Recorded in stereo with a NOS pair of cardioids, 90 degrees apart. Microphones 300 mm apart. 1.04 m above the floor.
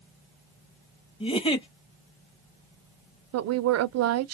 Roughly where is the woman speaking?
Ahead right.